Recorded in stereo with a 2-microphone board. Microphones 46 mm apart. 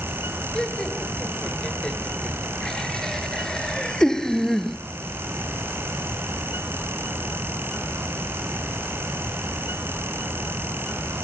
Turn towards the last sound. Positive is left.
turn(degrees=5)  # may be behind; listen again after turning